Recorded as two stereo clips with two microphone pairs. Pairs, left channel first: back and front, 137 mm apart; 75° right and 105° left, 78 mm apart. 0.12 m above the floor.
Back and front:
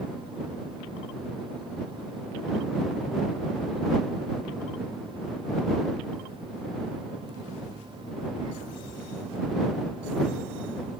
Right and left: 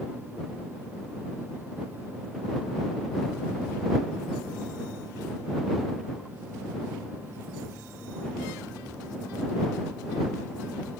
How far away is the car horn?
I don't hear a car horn.